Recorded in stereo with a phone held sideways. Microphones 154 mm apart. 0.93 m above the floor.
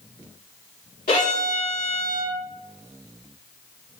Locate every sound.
1.1 s a violin: 70° left (ahead or behind), 1.9 m